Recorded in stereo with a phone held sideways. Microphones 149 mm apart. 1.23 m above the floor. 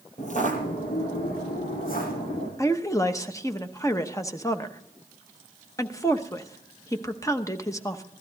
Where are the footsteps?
55° left (ahead or behind), 2 m; by 2.5 s 75° left (ahead or behind), 5.5 m.